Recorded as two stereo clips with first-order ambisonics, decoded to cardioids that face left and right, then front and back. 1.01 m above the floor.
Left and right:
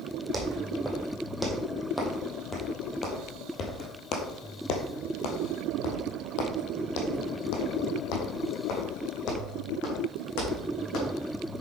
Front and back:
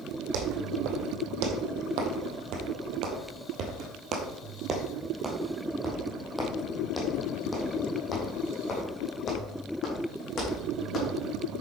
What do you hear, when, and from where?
0.3 s footsteps: 175° right, 3 m; by 11.1 s 60° left, 5 m